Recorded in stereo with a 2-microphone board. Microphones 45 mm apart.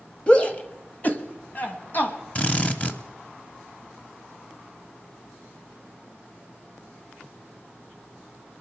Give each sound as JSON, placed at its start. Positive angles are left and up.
{"t": 0.3, "sound": "a shout", "side_deg": 25, "distance_m": 1.1}
{"t": 2.4, "sound": "a drill", "side_deg": 30, "distance_m": 1.0}